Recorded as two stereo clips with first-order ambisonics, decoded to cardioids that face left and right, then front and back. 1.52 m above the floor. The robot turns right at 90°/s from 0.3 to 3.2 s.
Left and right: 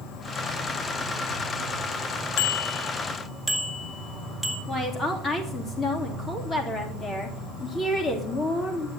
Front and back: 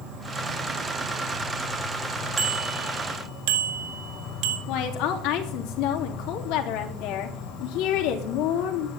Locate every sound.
0.0 s an insect: 130° left, 4 m; by 9.0 s 30° left, 4 m
2.4 s a bicycle bell: 105° left, 2.5 m; by 4.6 s straight behind, 2.5 m
4.7 s a woman speaking: 25° left, 3 m